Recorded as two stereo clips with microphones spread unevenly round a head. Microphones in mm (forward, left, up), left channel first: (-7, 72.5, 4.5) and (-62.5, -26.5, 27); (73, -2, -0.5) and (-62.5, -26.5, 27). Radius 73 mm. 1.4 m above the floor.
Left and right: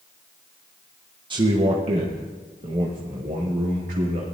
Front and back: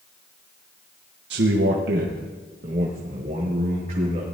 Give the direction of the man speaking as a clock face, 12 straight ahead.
6 o'clock.